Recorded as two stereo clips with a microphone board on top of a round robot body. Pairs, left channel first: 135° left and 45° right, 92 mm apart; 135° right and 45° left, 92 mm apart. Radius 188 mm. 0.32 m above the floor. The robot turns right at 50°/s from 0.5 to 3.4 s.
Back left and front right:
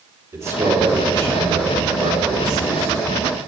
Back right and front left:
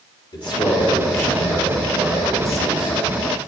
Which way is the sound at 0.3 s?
110° right.